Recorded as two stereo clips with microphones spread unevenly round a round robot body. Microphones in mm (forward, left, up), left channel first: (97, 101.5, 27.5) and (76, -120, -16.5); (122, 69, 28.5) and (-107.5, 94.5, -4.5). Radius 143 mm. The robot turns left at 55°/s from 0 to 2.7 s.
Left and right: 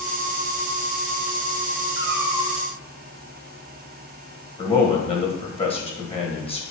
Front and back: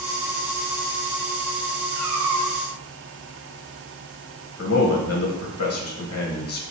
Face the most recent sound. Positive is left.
turn(degrees=15)